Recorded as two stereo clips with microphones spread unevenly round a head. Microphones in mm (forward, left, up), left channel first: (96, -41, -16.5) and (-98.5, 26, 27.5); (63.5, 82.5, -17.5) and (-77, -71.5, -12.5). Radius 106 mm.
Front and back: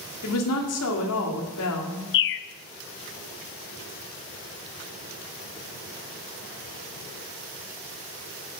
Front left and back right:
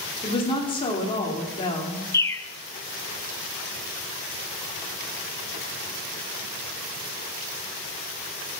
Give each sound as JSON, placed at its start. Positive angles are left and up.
{"t": 0.2, "sound": "a woman speaking", "azimuth_deg": -20, "distance_m": 2.5}
{"t": 2.1, "sound": "a bird", "azimuth_deg": -25, "distance_m": 0.5}